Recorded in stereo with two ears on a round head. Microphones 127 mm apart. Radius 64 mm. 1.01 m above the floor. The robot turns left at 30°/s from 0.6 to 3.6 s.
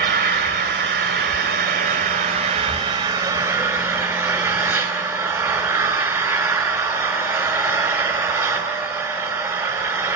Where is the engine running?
80° right, 3 m; by 10.2 s 170° right, 3 m.